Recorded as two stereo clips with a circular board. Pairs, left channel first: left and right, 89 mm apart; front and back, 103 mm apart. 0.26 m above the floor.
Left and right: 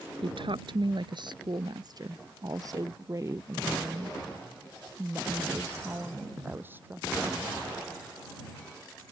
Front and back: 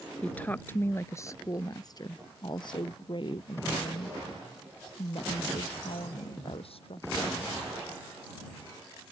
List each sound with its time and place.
0.2 s a woman speaking: 80° right; by 7.5 s 20° right